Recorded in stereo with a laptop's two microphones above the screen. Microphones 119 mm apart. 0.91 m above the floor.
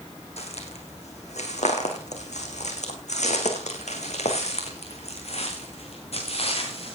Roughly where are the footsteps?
Left.